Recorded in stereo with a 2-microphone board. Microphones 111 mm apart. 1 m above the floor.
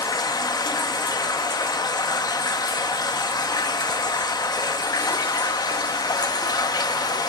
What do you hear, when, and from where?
0.0 s running water: 40° left (ahead or behind), 1.0 m